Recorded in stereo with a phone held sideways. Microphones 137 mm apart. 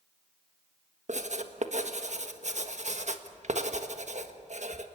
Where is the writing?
60° right (ahead or behind), 1.4 m.